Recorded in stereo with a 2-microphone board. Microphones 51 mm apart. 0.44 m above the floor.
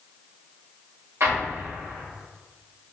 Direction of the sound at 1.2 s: 55° right (ahead or behind).